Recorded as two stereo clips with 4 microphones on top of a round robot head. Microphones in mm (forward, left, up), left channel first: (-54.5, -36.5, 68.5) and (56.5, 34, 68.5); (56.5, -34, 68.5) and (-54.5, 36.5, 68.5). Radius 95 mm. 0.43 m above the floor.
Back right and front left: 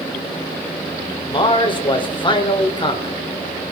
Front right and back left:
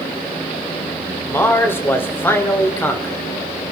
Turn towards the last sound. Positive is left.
turn(degrees=-105)